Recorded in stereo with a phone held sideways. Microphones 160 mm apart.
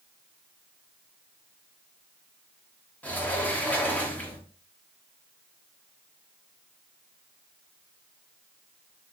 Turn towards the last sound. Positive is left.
turn(degrees=10)  # may be behind; listen again after turning